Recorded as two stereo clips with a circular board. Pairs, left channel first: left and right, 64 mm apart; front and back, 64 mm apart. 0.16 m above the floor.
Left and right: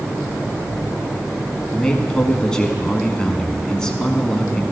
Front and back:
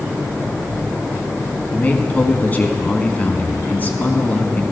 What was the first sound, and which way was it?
A man speaking, 25° left.